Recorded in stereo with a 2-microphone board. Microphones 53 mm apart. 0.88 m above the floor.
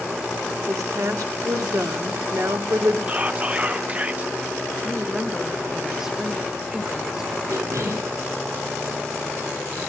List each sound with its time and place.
0.7 s a woman speaking: 80° right, 1.7 m
3.1 s whispering: 30° right (ahead or behind), 1.0 m
4.8 s a woman speaking: 5° right (ahead or behind), 1.2 m
7.5 s a cough: 70° right (ahead or behind), 8.5 m